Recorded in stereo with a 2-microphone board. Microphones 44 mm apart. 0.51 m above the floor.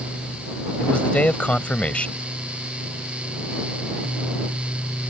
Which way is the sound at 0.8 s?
30° left (ahead or behind).